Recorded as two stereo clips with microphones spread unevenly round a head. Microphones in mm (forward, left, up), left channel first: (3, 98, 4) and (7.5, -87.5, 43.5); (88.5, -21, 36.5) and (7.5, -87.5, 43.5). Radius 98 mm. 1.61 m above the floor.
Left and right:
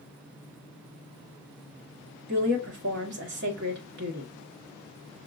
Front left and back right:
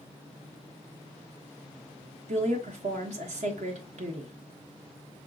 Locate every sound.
2.3 s a woman speaking: 125° right, 1.4 m